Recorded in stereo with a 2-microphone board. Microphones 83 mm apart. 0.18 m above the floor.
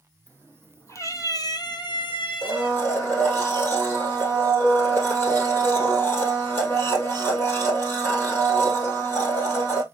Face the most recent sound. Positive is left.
turn(degrees=25)  # may be behind; listen again after turning